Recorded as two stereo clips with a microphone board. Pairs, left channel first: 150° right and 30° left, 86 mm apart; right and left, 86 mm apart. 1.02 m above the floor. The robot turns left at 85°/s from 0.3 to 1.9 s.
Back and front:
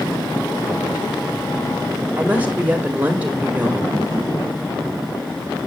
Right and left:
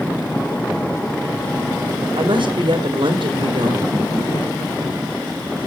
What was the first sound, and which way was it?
A woman speaking, 100° left.